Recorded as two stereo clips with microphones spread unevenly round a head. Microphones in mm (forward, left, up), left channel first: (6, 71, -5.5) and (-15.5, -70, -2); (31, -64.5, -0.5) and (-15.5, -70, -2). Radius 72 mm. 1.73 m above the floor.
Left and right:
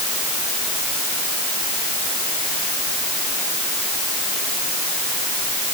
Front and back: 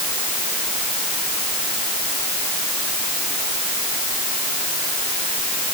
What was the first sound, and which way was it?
Only background noise.